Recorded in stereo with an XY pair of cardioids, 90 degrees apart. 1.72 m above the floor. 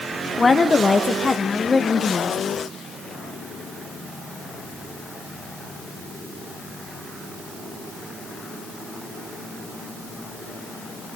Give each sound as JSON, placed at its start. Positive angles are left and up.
{"t": 0.4, "sound": "a woman speaking", "azimuth_deg": 30, "distance_m": 2.0}